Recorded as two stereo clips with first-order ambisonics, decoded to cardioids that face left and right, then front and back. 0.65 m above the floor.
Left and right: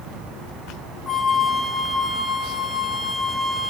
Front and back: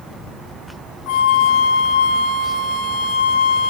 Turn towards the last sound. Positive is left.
turn(degrees=-5)